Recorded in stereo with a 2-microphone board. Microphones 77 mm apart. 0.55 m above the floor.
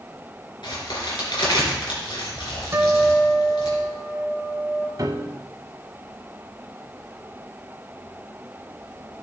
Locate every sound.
0.6 s a crack: 90° left, 3.5 m
2.7 s a guitar: 40° right (ahead or behind), 1.6 m
5.0 s a piano: 55° right (ahead or behind), 0.8 m